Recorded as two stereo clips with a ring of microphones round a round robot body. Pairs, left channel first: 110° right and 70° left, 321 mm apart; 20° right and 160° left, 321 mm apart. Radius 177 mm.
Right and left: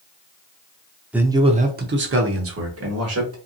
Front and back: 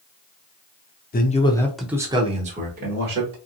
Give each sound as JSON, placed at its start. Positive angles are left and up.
{"t": 1.1, "sound": "a man speaking", "azimuth_deg": -15, "distance_m": 0.8}